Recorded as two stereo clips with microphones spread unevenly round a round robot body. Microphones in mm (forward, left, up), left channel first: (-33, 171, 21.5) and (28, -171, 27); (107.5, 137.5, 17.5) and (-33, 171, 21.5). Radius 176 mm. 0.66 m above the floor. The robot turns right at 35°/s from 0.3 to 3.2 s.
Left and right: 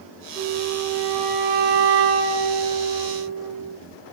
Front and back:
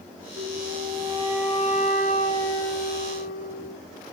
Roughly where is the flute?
Behind right.